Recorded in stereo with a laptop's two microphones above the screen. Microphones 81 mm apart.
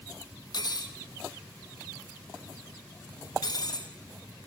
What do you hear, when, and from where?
0.5 s cutlery clinking: 55° left (ahead or behind), 0.7 m